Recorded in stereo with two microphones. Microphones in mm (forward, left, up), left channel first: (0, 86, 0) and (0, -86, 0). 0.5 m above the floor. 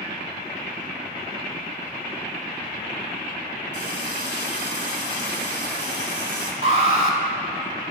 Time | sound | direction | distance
3.7 | a running tap | 75° left (ahead or behind) | 1.6 m
6.6 | an alarm | 35° right (ahead or behind) | 1.5 m